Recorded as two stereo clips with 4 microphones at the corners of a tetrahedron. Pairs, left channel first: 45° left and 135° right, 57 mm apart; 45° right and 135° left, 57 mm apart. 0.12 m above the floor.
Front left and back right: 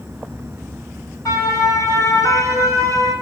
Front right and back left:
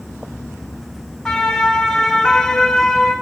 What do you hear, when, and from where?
1.2 s a siren: 40° left, 7 m; by 3.1 s 45° left, 9.5 m